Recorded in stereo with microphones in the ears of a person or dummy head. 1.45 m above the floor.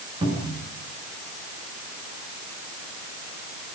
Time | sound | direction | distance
0.2 | a cupboard door | 35° right (ahead or behind) | 6.5 m